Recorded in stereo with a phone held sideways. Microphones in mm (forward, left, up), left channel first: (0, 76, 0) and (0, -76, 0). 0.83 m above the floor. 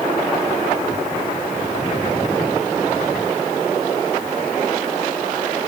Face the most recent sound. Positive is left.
No sound to turn to.